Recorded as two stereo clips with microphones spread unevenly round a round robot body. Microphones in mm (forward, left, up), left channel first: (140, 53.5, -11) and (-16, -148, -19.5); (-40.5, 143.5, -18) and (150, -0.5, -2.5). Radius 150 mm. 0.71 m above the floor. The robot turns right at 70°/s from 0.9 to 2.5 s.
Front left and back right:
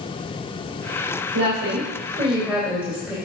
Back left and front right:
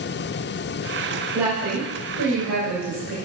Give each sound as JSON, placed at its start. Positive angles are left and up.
{"t": 1.3, "sound": "a woman speaking", "azimuth_deg": -120, "distance_m": 3.0}